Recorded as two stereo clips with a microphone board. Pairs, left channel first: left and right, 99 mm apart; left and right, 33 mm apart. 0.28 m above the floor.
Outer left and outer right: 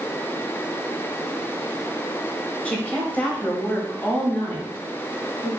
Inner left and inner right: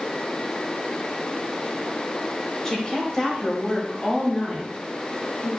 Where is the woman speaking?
15° left (ahead or behind), 1.2 m.